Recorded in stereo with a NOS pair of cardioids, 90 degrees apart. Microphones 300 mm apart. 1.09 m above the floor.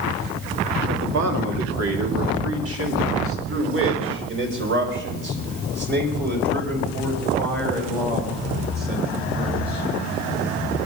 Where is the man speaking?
60° right, 2.5 m; by 9.8 s 30° right, 8.5 m.